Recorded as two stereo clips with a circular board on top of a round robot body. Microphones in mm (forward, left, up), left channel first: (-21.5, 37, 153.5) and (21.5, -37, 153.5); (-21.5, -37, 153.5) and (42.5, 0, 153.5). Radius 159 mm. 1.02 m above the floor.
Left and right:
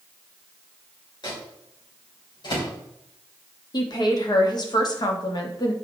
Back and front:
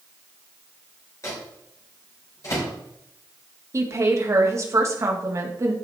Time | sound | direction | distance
1.2 | a microwave | 160° left | 3.5 m
3.7 | a woman speaking | 80° left | 1.8 m